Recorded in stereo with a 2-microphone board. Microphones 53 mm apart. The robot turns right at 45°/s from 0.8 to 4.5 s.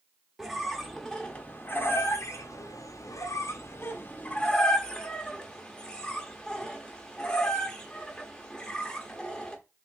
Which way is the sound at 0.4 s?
Centre (ahead or behind).